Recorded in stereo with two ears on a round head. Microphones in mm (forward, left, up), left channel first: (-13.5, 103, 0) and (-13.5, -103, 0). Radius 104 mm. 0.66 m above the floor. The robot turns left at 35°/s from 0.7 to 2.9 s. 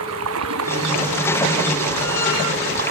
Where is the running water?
60° right; by 2.9 s 140° right.